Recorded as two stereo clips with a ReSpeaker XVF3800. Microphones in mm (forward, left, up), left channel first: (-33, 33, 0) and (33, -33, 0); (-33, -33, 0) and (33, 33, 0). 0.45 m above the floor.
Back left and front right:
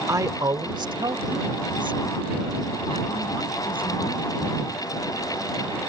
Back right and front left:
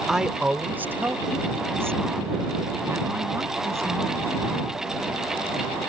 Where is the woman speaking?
40° right; by 5.2 s 15° right.